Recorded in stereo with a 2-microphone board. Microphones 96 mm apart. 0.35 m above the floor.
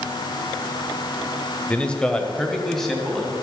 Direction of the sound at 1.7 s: 10° left (ahead or behind).